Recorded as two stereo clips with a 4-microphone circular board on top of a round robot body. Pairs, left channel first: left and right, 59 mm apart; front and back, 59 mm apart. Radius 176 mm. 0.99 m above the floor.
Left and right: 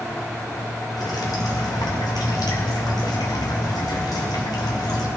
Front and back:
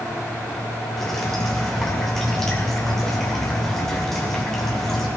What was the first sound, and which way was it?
Dripping, 85° left.